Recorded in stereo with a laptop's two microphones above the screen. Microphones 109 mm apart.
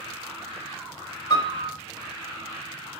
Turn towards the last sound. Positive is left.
turn(degrees=45)  # may be behind; listen again after turning